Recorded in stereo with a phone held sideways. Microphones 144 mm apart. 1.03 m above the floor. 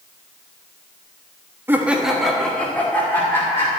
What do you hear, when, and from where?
1.7 s laughter: 15° right (ahead or behind), 1.2 m; by 3.7 s 20° left (ahead or behind), 3 m